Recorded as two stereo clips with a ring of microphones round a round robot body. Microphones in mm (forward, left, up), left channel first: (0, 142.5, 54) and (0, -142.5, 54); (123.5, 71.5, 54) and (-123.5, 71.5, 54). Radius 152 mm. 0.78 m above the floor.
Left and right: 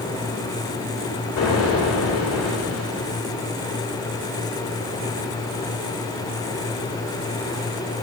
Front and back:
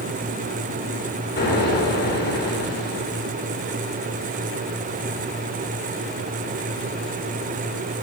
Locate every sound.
1.4 s an explosion: 45° left, 3 m